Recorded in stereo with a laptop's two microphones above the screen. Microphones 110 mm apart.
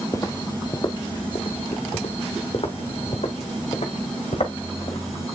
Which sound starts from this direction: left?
Footsteps, at 0.1 s.